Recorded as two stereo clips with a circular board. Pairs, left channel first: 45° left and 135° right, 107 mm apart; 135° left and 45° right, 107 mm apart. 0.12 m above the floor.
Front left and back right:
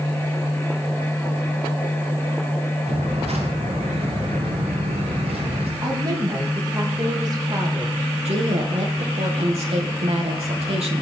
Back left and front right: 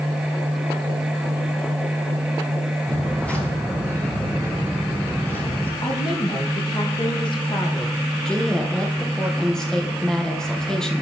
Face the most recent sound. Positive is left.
turn(degrees=-140)